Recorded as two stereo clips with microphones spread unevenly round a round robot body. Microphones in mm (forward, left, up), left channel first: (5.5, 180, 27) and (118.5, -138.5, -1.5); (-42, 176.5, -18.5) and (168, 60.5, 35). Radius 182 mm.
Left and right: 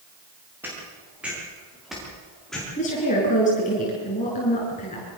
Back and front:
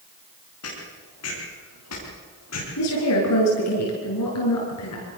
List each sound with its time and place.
0.6 s footsteps: 155° right, 8.5 m; by 2.7 s 160° right, 8.5 m
2.8 s a woman speaking: straight behind, 7.5 m